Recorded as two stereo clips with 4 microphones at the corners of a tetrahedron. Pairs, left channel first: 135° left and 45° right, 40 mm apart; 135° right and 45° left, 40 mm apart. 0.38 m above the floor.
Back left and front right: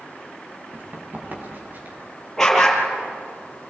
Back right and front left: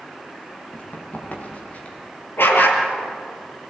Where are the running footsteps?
90° right, 7.5 m; by 2.0 s 85° right, 7 m.